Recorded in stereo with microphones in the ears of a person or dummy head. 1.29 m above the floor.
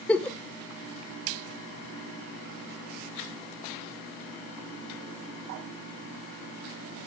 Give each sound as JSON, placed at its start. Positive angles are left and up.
{"t": 0.1, "sound": "a giggle", "side_deg": 10, "distance_m": 0.7}